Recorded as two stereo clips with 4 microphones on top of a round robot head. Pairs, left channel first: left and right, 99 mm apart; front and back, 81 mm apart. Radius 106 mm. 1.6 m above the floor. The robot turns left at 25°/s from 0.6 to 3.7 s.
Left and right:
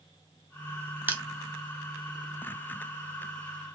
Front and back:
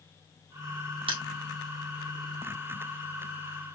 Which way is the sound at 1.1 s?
165° right.